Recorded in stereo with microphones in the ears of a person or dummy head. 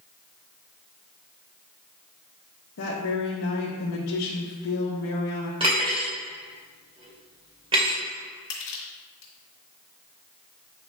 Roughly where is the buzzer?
No buzzer in this recording.